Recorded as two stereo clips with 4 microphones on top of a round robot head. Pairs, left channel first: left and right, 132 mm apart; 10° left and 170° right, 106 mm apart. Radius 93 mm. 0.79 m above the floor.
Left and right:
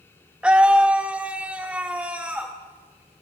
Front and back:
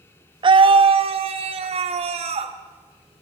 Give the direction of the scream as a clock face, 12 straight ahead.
6 o'clock.